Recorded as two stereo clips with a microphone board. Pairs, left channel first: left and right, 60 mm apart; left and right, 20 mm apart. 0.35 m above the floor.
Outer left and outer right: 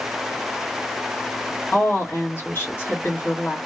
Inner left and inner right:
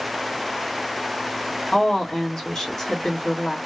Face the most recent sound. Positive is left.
turn(degrees=40)  # may be behind; listen again after turning